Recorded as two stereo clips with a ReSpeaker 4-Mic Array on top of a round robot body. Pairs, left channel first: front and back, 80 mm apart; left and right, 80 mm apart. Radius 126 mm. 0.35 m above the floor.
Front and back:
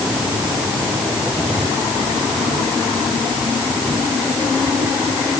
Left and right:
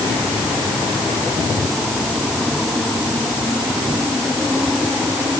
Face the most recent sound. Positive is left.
No sound to turn to.